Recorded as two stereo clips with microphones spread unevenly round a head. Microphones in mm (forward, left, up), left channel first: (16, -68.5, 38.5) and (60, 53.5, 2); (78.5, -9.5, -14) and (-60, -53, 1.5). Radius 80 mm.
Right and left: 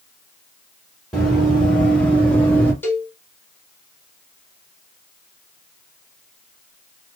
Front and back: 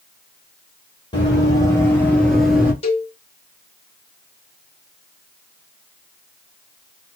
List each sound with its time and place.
1.1 s running footsteps: 40° right, 1.7 m; by 2.7 s 110° right, 1.2 m
2.8 s a cowbell: 35° right, 1.0 m